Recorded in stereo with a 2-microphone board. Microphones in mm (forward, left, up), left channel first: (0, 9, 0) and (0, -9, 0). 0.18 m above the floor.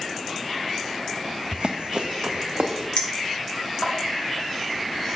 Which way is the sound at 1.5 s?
70° right (ahead or behind).